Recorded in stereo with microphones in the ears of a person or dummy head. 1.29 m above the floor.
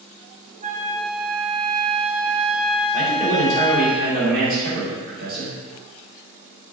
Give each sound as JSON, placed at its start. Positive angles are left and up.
{"t": 0.6, "sound": "a flute", "side_deg": -35, "distance_m": 0.5}
{"t": 2.9, "sound": "a man speaking", "side_deg": -45, "distance_m": 1.7}